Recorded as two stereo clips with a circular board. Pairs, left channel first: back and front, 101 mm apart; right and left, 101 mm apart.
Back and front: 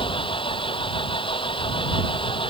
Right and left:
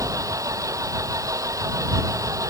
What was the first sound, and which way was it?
An engine running, 145° left.